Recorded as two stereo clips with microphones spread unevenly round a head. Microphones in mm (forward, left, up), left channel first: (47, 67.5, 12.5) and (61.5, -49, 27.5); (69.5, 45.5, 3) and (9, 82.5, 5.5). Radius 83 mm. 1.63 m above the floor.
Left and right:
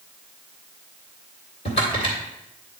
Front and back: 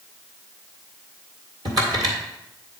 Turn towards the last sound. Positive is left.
turn(degrees=135)